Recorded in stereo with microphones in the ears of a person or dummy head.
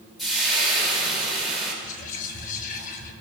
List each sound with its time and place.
0.2 s frying: centre (ahead or behind), 2.5 m
1.8 s whispering: 45° left (ahead or behind), 1.3 m